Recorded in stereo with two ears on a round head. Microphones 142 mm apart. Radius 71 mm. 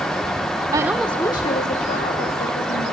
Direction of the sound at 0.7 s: 25° right (ahead or behind).